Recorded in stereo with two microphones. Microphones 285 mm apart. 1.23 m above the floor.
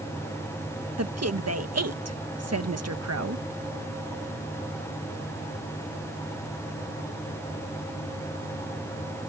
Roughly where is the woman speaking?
Right.